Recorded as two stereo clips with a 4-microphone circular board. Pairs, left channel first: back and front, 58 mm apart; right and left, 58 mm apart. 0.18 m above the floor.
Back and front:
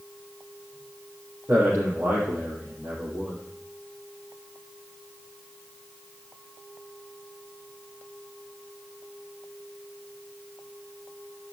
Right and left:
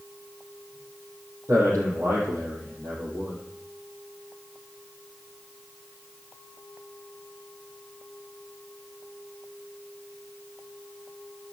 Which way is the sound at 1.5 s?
55° left.